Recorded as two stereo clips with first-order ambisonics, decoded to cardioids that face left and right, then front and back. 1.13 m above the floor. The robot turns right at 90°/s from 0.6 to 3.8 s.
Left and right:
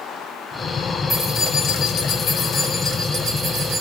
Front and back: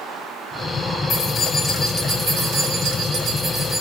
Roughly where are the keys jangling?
Ahead left.